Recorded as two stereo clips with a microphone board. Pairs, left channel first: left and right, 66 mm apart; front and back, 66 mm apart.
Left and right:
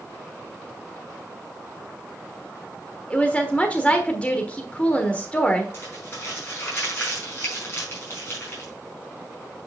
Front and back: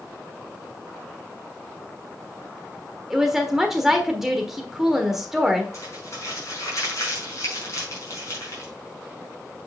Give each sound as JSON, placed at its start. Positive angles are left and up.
{"t": 3.1, "sound": "a woman speaking", "azimuth_deg": 105, "distance_m": 1.3}
{"t": 5.7, "sound": "crumpling", "azimuth_deg": 40, "distance_m": 5.0}